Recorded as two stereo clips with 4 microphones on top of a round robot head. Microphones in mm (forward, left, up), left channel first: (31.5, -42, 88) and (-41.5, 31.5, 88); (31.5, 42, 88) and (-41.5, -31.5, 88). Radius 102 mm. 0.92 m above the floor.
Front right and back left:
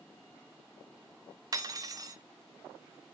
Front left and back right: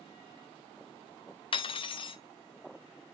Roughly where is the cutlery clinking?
Left.